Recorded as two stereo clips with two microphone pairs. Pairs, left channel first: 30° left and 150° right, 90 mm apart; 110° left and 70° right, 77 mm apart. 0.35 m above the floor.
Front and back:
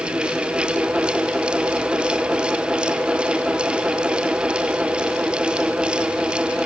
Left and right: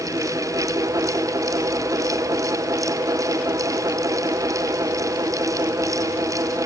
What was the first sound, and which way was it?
Only background noise.